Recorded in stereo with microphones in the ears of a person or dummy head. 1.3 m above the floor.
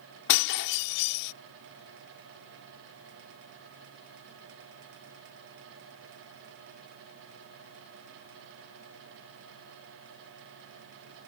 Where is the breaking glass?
60° left (ahead or behind).